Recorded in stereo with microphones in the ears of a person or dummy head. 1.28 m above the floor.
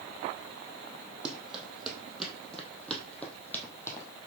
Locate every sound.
1.2 s running footsteps: 5° right (ahead or behind), 3.5 m; by 4.1 s 15° left (ahead or behind), 3 m